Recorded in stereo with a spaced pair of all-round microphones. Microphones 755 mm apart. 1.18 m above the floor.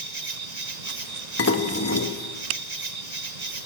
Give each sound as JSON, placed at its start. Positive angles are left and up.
{"t": 0.0, "sound": "an insect", "side_deg": -60, "distance_m": 1.1}
{"t": 1.4, "sound": "dishes clattering", "side_deg": 20, "distance_m": 1.0}